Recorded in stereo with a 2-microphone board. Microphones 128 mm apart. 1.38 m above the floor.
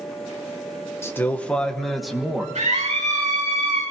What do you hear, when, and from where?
1.0 s a man speaking: 20° left (ahead or behind), 1.1 m; by 2.5 s 5° right (ahead or behind), 1.7 m
2.5 s a scream: 65° right (ahead or behind), 6 m